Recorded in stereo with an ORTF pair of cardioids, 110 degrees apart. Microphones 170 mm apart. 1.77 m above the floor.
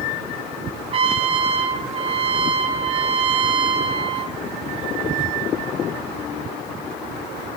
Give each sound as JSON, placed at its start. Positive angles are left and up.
{"t": 0.9, "sound": "a trumpet", "azimuth_deg": -35, "distance_m": 0.6}